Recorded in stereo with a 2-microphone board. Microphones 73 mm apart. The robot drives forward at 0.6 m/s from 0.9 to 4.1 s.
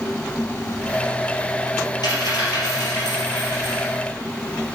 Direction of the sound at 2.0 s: 70° left (ahead or behind).